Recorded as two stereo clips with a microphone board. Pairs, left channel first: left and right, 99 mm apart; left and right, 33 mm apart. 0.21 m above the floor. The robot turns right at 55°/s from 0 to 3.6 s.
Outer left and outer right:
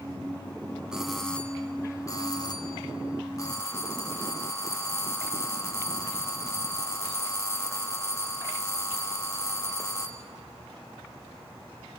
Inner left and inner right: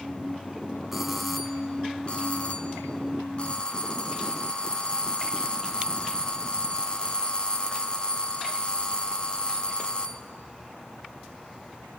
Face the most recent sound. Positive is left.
turn(degrees=135)